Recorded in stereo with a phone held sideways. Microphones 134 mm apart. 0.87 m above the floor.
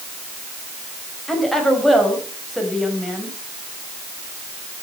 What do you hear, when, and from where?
1.3 s a woman speaking: centre (ahead or behind), 4.5 m